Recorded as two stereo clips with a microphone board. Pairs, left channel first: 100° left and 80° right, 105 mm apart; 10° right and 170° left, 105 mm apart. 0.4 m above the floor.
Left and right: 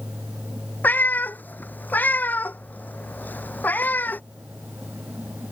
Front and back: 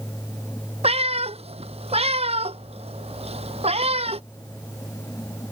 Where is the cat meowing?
175° left.